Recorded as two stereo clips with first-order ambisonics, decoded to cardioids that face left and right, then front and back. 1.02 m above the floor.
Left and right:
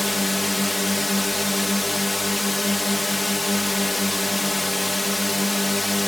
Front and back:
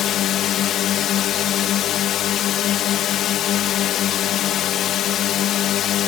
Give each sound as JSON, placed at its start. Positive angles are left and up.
{"t": 0.0, "sound": "a drone", "azimuth_deg": 10}